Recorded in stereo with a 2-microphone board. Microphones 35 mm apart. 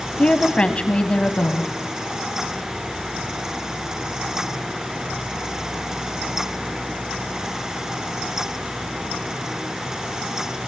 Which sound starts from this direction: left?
A woman speaking, at 0.2 s.